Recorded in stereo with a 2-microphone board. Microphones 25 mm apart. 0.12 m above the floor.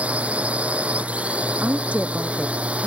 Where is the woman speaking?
70° right (ahead or behind).